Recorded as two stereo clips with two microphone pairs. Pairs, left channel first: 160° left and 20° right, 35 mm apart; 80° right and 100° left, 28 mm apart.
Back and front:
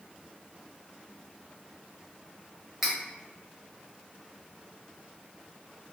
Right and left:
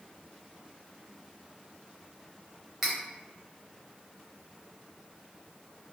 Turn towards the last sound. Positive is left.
turn(degrees=50)